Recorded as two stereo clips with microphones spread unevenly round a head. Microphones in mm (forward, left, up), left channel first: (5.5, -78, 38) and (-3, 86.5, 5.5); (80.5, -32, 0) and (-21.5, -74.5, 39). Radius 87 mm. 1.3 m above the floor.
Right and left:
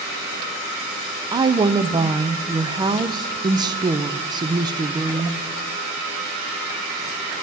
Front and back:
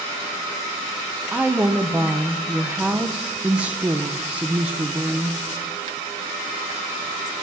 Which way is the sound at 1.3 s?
100° left.